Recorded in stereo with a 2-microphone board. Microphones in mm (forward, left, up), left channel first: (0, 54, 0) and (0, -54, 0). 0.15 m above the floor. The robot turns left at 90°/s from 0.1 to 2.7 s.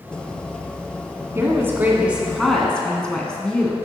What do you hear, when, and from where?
1.4 s a woman speaking: 25° right (ahead or behind), 1.2 m; by 3.8 s 10° left (ahead or behind), 1.2 m